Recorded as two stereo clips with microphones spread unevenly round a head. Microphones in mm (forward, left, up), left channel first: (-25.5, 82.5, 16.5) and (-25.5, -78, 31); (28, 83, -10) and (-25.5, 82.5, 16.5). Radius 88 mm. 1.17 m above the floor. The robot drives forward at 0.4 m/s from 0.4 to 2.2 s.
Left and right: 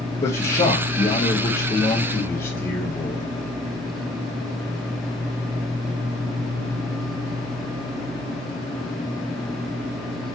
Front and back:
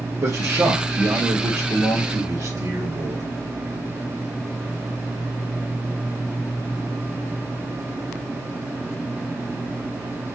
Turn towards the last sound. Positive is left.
turn(degrees=155)